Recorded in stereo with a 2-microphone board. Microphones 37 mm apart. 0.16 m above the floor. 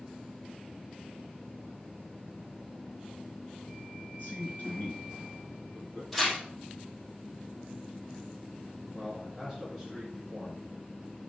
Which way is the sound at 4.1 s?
55° left (ahead or behind).